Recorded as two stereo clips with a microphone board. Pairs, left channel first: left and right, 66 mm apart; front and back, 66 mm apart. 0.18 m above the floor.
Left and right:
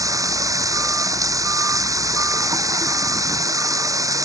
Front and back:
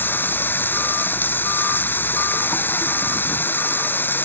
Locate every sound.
0.0 s running water: 60° right